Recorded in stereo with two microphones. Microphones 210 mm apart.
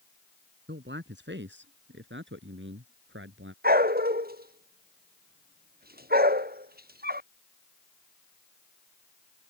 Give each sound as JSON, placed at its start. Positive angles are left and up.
{"t": 0.7, "sound": "a man speaking", "side_deg": -60}
{"t": 3.6, "sound": "a dog barking", "side_deg": -45}